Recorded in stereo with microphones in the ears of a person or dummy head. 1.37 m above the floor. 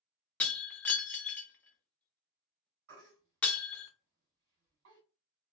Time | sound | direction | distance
0.4 | breaking glass | 10° left (ahead or behind) | 0.7 m
2.9 | a baby crying | 65° right (ahead or behind) | 1.6 m